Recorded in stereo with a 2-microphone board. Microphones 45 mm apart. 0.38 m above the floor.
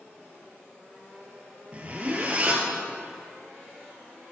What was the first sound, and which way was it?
A zipper, 30° right (ahead or behind).